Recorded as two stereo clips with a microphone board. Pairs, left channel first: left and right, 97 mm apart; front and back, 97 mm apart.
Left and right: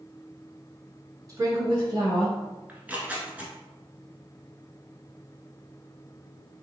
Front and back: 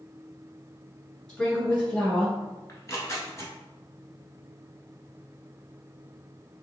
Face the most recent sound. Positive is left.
turn(degrees=-25)